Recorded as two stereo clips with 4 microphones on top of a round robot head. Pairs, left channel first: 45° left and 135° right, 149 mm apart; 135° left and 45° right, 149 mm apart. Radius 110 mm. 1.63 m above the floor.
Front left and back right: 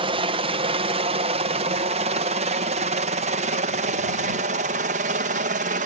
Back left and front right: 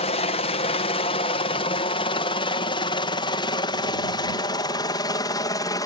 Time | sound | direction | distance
0.0 | a helicopter | 175° left | ?